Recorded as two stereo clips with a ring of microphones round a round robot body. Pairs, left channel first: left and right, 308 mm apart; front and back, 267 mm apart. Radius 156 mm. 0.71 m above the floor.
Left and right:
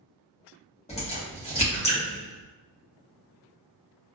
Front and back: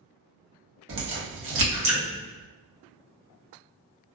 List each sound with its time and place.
0.9 s a crack: 155° left, 1.3 m